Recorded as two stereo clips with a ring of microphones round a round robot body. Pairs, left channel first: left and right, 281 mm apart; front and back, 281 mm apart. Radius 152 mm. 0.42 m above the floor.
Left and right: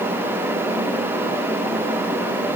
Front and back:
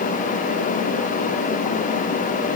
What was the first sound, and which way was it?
Only background noise.